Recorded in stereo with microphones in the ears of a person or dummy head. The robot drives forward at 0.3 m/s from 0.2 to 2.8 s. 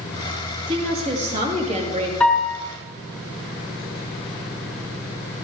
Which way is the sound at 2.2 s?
Centre (ahead or behind).